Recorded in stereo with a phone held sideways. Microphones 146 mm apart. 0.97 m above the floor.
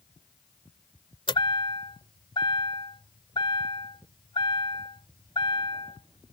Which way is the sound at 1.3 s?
35° left (ahead or behind).